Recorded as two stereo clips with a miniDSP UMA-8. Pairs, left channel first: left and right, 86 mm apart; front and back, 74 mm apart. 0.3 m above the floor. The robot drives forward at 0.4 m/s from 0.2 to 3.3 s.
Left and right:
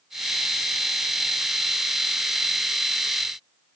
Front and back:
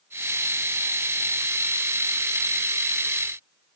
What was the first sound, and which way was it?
Only background noise.